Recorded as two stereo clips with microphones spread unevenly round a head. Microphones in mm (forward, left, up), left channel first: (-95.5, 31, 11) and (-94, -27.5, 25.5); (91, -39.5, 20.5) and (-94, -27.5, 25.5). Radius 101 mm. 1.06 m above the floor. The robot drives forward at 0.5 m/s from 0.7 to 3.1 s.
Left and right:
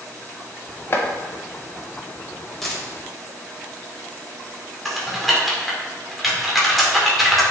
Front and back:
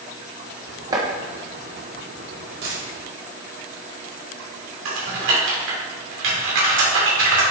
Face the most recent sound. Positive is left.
turn(degrees=-175)